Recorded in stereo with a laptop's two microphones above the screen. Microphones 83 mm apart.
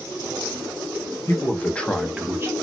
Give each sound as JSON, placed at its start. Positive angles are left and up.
{"t": 1.3, "sound": "a man speaking", "side_deg": 30, "distance_m": 1.2}